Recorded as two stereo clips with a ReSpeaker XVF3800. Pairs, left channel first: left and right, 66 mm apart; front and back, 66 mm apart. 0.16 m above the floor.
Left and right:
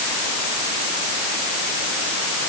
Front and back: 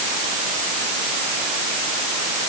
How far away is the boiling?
No boiling in this recording.